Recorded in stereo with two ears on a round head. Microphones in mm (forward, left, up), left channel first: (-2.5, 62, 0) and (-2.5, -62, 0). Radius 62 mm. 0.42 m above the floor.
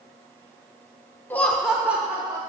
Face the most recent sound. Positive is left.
turn(degrees=-20)  # may be behind; listen again after turning